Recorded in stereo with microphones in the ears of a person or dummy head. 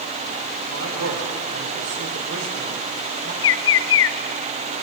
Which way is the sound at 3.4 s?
65° left (ahead or behind).